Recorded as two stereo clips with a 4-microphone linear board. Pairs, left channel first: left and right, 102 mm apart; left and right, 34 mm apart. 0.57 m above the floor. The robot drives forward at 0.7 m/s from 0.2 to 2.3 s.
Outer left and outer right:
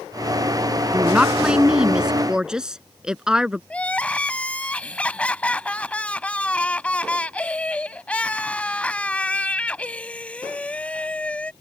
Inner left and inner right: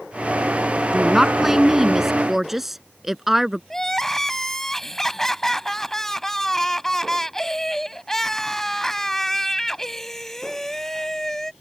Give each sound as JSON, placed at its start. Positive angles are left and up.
{"t": 0.9, "sound": "a woman speaking", "side_deg": -10}
{"t": 3.7, "sound": "crying", "side_deg": 10}